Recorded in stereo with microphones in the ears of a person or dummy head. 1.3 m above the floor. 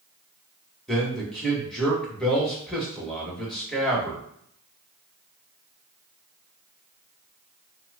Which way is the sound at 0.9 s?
Centre (ahead or behind).